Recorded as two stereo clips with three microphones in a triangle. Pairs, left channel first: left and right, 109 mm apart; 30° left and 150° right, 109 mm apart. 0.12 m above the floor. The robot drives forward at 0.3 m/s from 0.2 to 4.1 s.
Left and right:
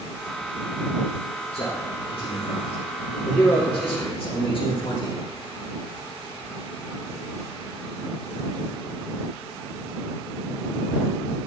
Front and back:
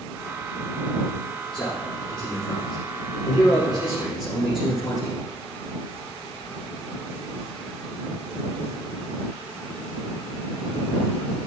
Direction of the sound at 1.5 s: 115° left.